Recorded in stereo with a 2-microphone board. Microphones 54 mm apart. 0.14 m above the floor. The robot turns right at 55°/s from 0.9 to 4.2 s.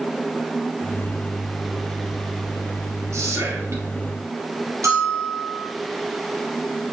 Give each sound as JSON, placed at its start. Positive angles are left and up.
{"t": 3.1, "sound": "whispering", "azimuth_deg": -105, "distance_m": 3.0}
{"t": 4.8, "sound": "a bell", "side_deg": -65, "distance_m": 2.5}